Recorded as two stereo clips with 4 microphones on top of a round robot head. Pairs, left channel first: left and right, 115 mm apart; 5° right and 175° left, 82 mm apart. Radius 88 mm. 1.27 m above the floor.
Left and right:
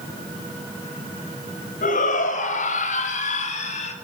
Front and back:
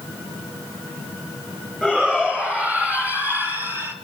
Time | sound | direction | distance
1.8 | a shout | 90° left | 6 m